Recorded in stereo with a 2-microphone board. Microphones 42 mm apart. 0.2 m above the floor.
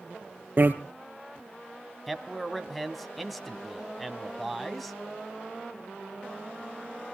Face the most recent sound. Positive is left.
turn(degrees=0)  # may be behind; listen again after turning